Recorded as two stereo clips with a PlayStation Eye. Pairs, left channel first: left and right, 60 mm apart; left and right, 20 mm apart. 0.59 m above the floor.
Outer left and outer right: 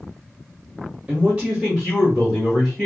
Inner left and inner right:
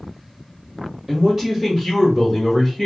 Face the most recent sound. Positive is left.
turn(degrees=5)  # may be behind; listen again after turning